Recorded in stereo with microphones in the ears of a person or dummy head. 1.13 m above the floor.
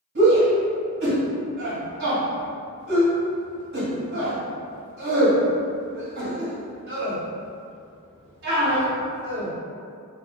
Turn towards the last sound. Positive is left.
turn(degrees=-65)  # may be behind; listen again after turning